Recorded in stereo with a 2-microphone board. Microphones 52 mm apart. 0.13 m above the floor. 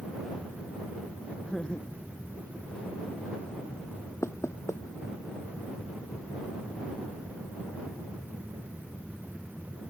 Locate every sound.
1.4 s laughter: 15° left (ahead or behind); by 3.3 s 20° left (ahead or behind)
4.2 s knocking: 65° left (ahead or behind)